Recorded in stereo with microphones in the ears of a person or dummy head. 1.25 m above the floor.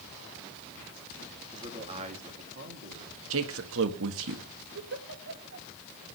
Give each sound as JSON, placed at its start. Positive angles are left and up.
{"t": 1.5, "sound": "a man speaking", "side_deg": -20, "distance_m": 3.0}
{"t": 3.3, "sound": "a man speaking", "side_deg": -80, "distance_m": 1.6}
{"t": 4.8, "sound": "a giggle", "side_deg": -65, "distance_m": 2.0}